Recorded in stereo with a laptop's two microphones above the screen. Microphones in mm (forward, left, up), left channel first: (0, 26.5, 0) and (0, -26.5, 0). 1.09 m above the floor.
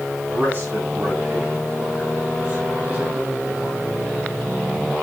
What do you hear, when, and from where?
0.3 s a man speaking: 35° right (ahead or behind), 9.5 m; by 3.9 s 20° right (ahead or behind), 6.5 m